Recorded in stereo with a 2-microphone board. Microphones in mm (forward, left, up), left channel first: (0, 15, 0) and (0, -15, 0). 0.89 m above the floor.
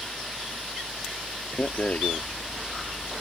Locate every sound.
1.6 s a rattle: 50° left (ahead or behind)